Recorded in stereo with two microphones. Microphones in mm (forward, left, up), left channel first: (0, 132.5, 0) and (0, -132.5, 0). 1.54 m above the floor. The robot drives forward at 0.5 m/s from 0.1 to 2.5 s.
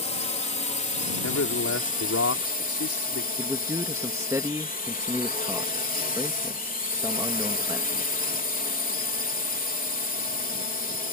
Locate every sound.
0.0 s a drone: 25° left (ahead or behind); by 11.1 s 30° left (ahead or behind)
1.2 s a man speaking: 70° left (ahead or behind); by 3.3 s 60° left (ahead or behind)
3.4 s a man speaking: 10° right (ahead or behind)